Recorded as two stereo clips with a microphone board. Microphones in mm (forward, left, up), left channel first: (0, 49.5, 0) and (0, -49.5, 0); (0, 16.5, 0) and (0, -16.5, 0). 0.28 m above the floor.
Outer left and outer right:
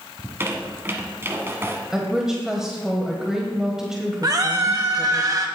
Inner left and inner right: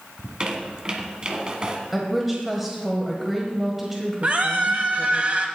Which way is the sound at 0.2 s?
25° right (ahead or behind).